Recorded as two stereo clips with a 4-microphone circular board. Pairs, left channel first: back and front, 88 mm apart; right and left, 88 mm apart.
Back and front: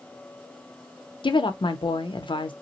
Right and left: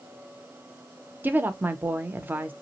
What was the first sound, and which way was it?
A woman speaking, 160° left.